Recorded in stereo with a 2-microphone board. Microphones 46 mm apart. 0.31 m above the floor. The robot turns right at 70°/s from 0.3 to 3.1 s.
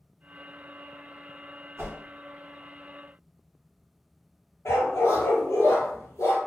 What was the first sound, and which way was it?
A whoosh, 55° right (ahead or behind).